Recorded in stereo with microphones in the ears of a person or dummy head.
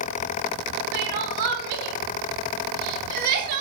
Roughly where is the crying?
Right.